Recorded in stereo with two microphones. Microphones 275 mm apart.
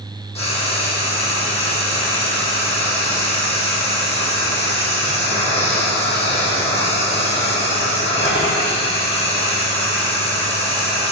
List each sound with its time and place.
0.3 s frying: 20° left (ahead or behind), 3.5 m